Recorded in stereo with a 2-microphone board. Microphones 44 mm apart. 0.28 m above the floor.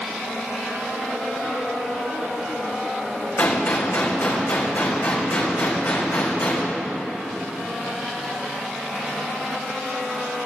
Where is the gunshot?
75° left (ahead or behind), 3 m.